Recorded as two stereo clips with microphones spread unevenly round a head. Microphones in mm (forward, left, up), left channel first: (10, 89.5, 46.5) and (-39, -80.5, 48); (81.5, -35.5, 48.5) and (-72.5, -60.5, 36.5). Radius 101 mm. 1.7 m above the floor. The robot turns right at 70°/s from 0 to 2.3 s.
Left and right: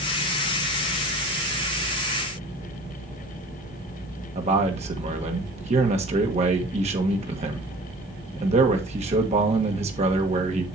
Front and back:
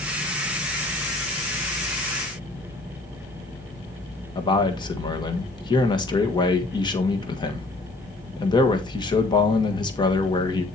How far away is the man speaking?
About 1.5 m.